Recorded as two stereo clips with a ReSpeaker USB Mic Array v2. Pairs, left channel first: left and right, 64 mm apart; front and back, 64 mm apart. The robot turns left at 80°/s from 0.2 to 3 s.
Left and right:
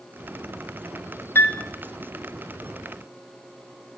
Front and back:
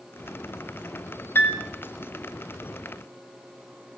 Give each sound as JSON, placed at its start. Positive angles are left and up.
{"t": 1.4, "sound": "a piano", "azimuth_deg": 45, "distance_m": 1.4}